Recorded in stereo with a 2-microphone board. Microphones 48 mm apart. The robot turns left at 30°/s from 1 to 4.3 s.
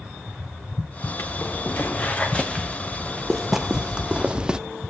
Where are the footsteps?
60° left (ahead or behind), 2.5 m; by 4.6 s 15° right (ahead or behind), 0.7 m.